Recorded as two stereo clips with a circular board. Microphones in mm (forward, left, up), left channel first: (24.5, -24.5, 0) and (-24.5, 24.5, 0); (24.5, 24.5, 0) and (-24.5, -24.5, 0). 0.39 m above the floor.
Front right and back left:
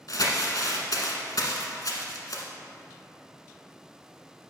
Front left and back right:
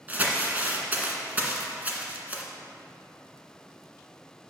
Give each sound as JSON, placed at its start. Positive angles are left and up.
{"t": 0.1, "sound": "crumpling", "azimuth_deg": -70, "distance_m": 1.1}